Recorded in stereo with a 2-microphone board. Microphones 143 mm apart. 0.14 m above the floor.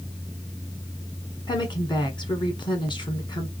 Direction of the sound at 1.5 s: 35° left (ahead or behind).